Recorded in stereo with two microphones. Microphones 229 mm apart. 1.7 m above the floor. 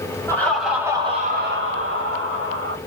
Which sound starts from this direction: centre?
Laughter, at 0.3 s.